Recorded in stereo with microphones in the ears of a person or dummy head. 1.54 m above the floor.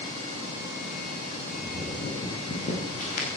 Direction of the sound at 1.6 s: 30° left (ahead or behind).